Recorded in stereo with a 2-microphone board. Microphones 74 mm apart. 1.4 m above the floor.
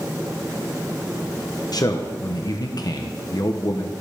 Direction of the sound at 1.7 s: 60° left (ahead or behind).